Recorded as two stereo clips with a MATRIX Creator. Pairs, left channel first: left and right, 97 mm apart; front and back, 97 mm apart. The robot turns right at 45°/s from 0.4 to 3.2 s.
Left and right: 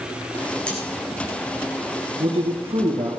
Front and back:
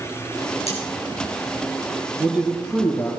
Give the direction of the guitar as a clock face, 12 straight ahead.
I don't hear a guitar.